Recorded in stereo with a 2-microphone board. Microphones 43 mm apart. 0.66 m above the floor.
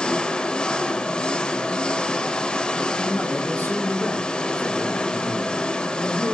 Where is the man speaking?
50° left (ahead or behind), 8 m.